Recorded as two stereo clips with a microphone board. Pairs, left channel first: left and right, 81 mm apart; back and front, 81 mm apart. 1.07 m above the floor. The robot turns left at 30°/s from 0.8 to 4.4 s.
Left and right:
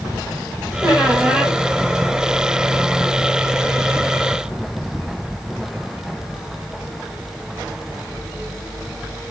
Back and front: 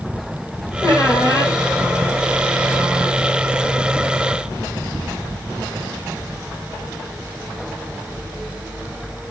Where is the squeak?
150° right, 1.6 m; by 1.6 s 175° right, 1.6 m.